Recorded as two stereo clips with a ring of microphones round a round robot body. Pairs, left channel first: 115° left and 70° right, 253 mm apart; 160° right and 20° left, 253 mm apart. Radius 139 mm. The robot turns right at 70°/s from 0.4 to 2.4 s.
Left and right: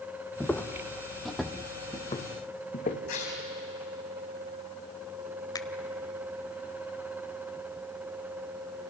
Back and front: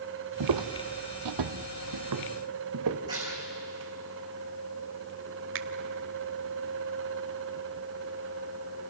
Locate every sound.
0.4 s footsteps: 25° left, 1.0 m; by 3.0 s 50° left, 2.5 m
3.1 s tearing paper: 100° left, 6 m
5.5 s a finger snap: 40° left, 1.1 m